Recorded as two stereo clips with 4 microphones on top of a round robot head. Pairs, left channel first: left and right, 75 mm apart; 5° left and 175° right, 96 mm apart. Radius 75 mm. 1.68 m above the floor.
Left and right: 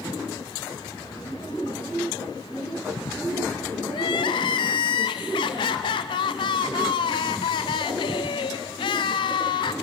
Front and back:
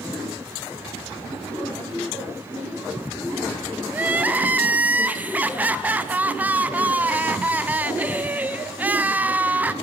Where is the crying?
110° left, 0.5 m.